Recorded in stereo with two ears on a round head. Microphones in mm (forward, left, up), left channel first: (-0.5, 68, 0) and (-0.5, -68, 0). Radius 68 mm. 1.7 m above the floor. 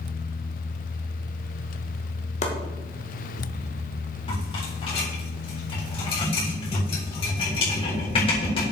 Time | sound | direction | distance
2.4 | chopping | 50° left (ahead or behind) | 1.7 m
4.3 | a rattle | 40° left (ahead or behind) | 3.5 m